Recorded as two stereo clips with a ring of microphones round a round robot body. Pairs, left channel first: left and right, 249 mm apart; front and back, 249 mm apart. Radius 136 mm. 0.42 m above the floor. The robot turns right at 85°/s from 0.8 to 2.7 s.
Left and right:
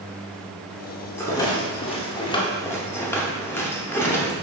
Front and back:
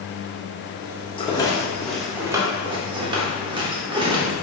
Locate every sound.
1.2 s a rattle: 25° left, 0.7 m; by 4.3 s 155° left, 0.7 m